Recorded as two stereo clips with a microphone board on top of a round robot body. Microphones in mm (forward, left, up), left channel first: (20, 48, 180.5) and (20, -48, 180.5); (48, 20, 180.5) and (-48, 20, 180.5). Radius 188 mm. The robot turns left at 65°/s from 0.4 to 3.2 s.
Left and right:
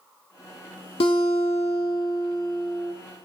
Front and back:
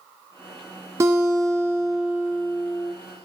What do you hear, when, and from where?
1.0 s a guitar: 120° left, 0.8 m; by 2.9 s 5° right, 0.8 m